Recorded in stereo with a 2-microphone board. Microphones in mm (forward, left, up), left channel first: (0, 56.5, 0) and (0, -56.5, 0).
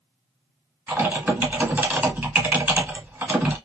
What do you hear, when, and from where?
0.9 s typing on a keyboard: 15° right (ahead or behind), 0.9 m